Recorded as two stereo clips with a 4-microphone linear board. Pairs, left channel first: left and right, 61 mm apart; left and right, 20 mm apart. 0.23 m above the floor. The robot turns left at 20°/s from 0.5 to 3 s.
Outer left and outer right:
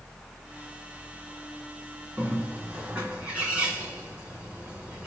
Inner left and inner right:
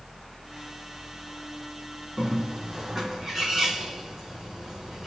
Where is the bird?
30° right (ahead or behind), 2.0 m; by 5.1 s 20° right (ahead or behind), 2.0 m.